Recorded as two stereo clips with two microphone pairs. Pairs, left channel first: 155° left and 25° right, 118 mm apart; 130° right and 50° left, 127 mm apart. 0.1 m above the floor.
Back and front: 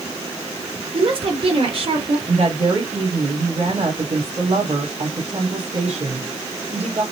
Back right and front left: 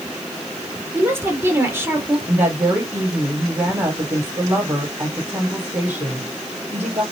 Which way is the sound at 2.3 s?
25° right.